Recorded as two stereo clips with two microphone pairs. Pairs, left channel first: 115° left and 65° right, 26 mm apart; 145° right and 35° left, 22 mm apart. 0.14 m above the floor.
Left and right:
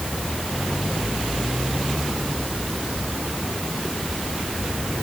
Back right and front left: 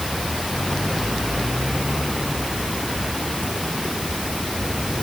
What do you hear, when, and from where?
Only background noise.